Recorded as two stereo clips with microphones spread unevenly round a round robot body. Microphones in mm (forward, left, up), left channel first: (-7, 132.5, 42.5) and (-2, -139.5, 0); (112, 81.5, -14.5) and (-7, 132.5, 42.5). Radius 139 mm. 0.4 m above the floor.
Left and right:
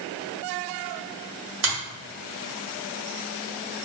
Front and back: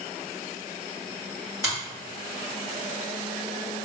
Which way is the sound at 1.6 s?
120° right.